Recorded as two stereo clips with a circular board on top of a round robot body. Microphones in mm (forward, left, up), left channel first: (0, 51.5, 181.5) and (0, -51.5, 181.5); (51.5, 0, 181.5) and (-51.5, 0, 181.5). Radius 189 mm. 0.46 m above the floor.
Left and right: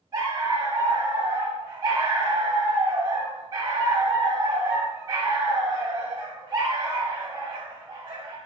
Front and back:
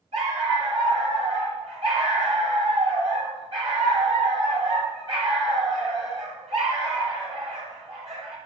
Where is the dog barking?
145° right, 6 m.